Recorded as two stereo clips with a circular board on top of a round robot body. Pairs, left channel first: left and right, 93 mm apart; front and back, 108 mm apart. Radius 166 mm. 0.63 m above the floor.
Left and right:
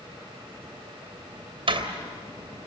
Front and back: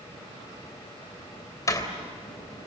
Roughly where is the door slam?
Ahead right.